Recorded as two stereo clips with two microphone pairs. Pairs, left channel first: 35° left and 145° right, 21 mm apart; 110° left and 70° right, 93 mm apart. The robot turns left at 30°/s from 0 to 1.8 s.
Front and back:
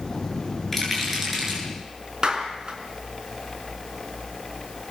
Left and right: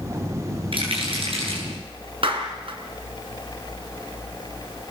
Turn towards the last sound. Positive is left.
turn(degrees=-100)